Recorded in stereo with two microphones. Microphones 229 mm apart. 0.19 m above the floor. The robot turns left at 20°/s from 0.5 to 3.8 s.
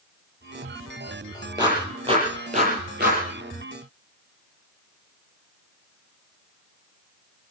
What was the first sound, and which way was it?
A clap, 20° right (ahead or behind).